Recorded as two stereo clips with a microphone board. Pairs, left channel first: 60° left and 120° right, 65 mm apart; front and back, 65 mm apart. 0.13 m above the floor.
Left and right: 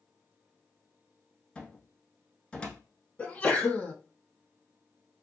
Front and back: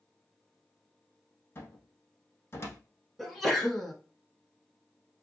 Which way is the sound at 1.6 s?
5° right.